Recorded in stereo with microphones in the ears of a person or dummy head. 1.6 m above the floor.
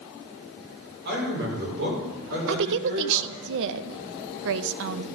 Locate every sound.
1.1 s a man speaking: 65° right (ahead or behind), 5.5 m
2.5 s a woman speaking: 70° right (ahead or behind), 0.6 m